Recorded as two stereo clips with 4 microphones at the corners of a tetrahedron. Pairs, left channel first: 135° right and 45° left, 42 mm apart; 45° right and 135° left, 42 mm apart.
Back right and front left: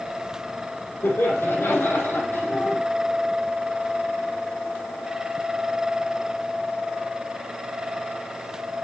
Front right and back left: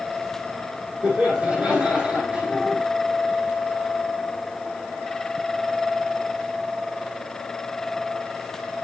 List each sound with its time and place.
1.0 s laughter: 160° right, 5 m